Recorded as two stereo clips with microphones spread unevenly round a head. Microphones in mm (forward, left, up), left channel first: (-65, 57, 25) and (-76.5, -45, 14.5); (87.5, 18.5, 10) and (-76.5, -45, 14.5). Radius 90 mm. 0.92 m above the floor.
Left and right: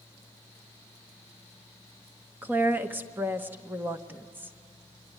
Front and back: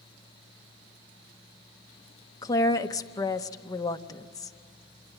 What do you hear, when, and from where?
2.4 s a woman speaking: 40° right, 0.9 m